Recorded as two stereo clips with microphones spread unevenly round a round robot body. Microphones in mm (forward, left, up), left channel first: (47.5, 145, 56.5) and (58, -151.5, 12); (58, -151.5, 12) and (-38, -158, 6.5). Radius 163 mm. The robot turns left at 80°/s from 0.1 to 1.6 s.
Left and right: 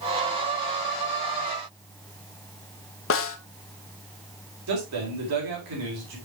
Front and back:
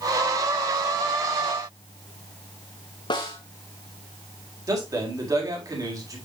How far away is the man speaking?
About 4.5 m.